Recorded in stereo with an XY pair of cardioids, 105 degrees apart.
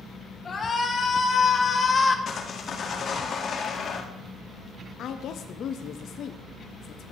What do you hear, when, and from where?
0.5 s a shout: 35° left, 2.0 m
2.3 s sawing: 45° left, 1.0 m
5.0 s a woman speaking: 60° left, 0.5 m